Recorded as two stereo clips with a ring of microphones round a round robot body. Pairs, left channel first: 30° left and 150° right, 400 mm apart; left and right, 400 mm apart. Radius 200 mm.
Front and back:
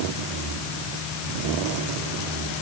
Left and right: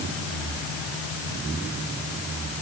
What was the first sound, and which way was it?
Only background noise.